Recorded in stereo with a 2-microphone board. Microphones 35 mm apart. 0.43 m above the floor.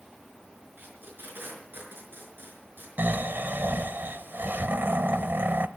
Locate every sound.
0.8 s tape being pulled: 70° right (ahead or behind), 5 m
3.0 s snoring: 70° right (ahead or behind), 0.8 m